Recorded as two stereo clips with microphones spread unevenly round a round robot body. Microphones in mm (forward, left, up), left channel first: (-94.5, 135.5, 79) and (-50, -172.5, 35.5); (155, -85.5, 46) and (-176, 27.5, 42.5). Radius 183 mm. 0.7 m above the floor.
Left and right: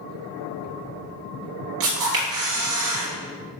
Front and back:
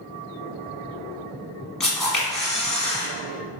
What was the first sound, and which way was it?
A camera shutter, 105° right.